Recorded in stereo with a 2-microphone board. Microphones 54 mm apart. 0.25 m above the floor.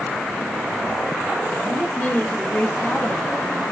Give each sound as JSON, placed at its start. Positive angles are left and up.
{"t": 1.6, "sound": "a woman speaking", "side_deg": 20, "distance_m": 1.3}